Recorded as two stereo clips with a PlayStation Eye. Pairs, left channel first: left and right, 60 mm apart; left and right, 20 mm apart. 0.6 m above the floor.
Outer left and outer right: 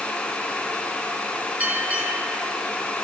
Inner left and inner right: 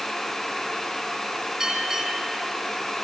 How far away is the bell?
About 7 m.